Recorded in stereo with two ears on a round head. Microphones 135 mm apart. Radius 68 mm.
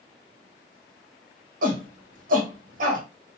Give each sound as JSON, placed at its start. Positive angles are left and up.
{"t": 1.6, "sound": "a shout", "side_deg": -60, "distance_m": 1.0}